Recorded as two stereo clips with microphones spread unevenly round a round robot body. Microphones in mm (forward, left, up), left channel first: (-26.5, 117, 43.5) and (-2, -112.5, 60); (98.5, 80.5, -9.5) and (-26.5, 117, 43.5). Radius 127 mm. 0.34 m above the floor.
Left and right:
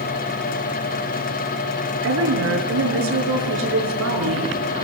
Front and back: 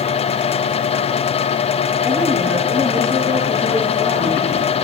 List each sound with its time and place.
2.0 s a woman speaking: 115° right, 6.5 m